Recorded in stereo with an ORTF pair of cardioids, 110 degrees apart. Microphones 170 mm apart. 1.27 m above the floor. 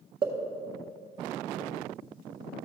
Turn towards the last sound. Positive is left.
turn(degrees=-30)